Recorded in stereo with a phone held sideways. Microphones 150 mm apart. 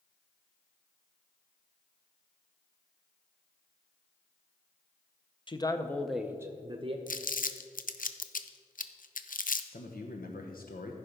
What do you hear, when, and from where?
5.5 s a man speaking: 35° left (ahead or behind), 0.7 m; by 7.0 s 40° right (ahead or behind), 0.9 m
7.1 s crumpling: 65° left (ahead or behind), 0.5 m
9.7 s a man speaking: 75° left (ahead or behind), 1.0 m